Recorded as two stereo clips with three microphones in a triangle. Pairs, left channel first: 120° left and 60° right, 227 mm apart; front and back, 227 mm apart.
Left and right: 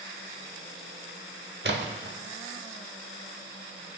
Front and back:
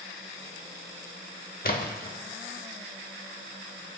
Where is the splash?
40° right, 0.8 m.